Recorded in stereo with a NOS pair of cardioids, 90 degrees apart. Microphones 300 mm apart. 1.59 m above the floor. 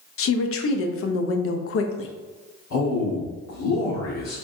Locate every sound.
0.2 s a woman speaking: 50° left, 0.6 m
2.7 s a man speaking: 60° left, 1.4 m